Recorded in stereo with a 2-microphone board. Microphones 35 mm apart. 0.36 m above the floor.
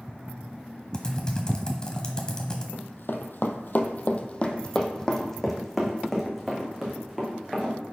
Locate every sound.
0.9 s typing on a keyboard: 20° left (ahead or behind), 0.9 m
2.7 s running footsteps: 65° left (ahead or behind), 0.8 m; by 7.8 s 10° right (ahead or behind), 2.5 m